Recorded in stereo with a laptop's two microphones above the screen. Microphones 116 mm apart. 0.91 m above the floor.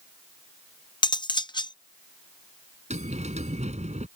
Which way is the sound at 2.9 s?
80° right.